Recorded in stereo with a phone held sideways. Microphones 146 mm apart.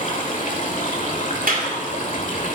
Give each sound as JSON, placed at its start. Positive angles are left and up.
{"t": 0.0, "sound": "running water", "side_deg": 60, "distance_m": 1.8}
{"t": 1.5, "sound": "a clap", "side_deg": -75, "distance_m": 2.0}